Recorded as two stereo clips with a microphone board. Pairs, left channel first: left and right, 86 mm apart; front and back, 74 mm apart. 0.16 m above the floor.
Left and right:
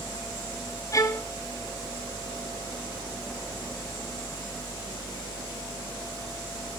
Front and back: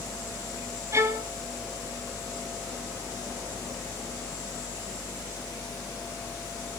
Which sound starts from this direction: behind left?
A violin, at 0.9 s.